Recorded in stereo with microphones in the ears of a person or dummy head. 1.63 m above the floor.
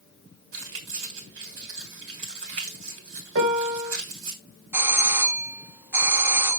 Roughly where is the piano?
Right.